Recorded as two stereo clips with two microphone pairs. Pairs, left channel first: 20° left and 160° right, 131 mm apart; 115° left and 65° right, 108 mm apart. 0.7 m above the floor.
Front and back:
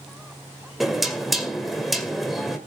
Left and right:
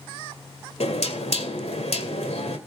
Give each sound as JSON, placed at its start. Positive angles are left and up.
{"t": 0.8, "sound": "knocking", "azimuth_deg": 110, "distance_m": 2.0}